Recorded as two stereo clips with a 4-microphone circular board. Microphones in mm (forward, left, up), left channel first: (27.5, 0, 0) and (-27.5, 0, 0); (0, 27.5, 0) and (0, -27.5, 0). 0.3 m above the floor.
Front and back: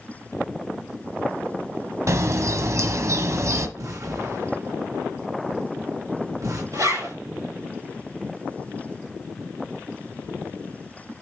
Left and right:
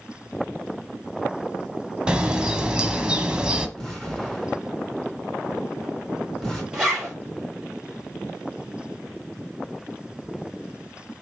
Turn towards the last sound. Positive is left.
turn(degrees=-170)